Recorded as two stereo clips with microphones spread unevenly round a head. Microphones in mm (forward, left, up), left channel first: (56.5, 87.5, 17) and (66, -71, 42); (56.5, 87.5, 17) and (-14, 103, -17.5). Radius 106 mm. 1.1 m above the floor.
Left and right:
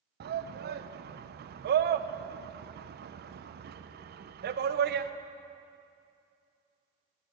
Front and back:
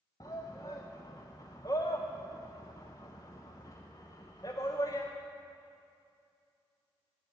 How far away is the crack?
No crack in this recording.